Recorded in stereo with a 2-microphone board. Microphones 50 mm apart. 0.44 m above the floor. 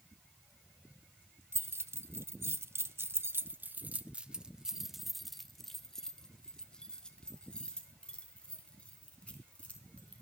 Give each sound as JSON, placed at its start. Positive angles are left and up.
{"t": 1.5, "sound": "keys jangling", "side_deg": -55, "distance_m": 1.3}